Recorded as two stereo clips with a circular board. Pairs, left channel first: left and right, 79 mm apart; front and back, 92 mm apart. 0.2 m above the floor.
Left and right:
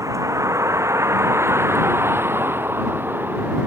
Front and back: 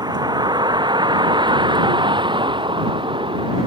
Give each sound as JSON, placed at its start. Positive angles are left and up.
{"t": 0.0, "sound": "a vehicle", "azimuth_deg": -140}